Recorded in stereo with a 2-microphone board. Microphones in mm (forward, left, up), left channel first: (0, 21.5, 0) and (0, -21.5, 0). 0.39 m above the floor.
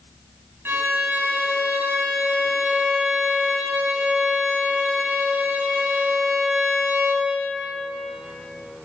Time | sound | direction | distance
0.7 | a violin | 70° right (ahead or behind) | 3 m